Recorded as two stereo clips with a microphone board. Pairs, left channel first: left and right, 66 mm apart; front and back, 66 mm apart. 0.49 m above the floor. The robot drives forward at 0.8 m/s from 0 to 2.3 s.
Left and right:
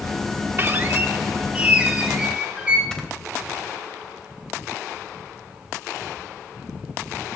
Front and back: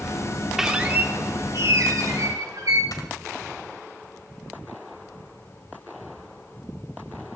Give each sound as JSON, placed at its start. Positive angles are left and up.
{"t": 0.6, "sound": "a squeak", "azimuth_deg": -100, "distance_m": 0.8}
{"t": 2.9, "sound": "snoring", "azimuth_deg": 10, "distance_m": 2.0}